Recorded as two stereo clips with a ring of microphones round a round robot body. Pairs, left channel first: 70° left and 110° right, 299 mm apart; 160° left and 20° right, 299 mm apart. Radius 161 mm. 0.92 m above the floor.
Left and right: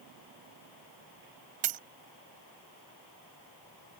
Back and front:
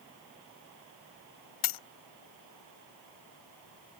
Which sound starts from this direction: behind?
A dropped coin, at 1.6 s.